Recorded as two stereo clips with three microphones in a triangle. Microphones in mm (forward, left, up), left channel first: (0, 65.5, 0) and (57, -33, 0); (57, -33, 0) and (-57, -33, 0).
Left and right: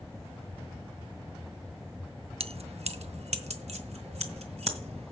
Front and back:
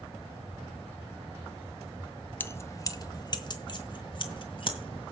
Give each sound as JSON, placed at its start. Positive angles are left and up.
{"t": 2.4, "sound": "keys jangling", "azimuth_deg": -70, "distance_m": 0.7}